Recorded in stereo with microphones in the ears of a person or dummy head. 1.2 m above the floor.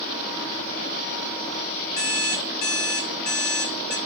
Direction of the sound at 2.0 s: 60° left (ahead or behind).